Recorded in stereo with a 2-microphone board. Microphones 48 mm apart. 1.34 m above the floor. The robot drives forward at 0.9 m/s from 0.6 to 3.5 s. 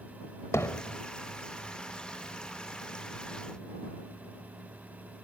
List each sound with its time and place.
0.5 s hammering: 75° left (ahead or behind)